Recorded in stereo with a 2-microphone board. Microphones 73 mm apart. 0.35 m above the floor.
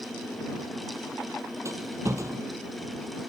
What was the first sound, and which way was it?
A rattle, 40° right (ahead or behind).